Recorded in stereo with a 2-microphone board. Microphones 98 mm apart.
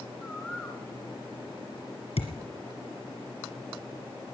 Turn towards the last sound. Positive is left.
turn(degrees=80)